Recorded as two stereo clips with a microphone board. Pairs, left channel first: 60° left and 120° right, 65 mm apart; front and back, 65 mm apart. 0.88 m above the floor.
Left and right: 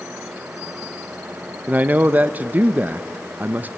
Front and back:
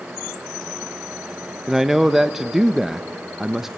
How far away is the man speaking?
About 0.6 m.